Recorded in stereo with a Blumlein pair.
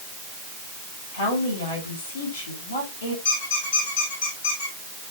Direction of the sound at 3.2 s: 65° left.